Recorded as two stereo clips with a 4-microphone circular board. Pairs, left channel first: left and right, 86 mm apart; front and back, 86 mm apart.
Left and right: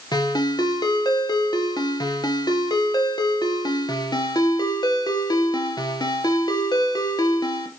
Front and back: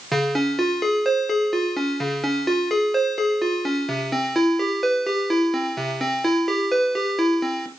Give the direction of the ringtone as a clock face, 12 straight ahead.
9 o'clock.